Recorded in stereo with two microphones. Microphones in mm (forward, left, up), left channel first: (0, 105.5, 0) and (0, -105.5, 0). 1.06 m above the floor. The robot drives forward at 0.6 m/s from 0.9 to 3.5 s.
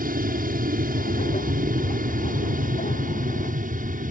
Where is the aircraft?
40° right (ahead or behind).